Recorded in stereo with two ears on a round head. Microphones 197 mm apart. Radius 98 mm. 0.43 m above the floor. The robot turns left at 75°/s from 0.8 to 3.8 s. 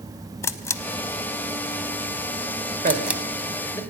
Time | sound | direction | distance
0.4 | a camera shutter | 15° left (ahead or behind) | 0.5 m
2.8 | a man speaking | 40° right (ahead or behind) | 1.7 m